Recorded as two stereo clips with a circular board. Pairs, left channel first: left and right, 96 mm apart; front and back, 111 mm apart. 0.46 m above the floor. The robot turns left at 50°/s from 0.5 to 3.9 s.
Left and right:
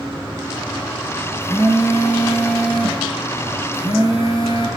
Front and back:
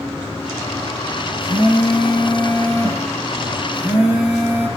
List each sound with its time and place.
1.4 s a phone buzzing: 130° right, 8.5 m; by 4.7 s 105° left, 8.5 m